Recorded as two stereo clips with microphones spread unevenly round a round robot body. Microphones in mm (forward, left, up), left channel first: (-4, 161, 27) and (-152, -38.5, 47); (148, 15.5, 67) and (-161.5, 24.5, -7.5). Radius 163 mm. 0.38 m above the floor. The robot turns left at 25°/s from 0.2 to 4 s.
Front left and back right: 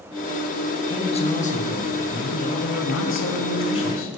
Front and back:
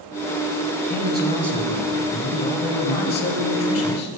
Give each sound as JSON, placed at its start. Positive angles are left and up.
{"t": 0.9, "sound": "a man speaking", "azimuth_deg": 120, "distance_m": 2.5}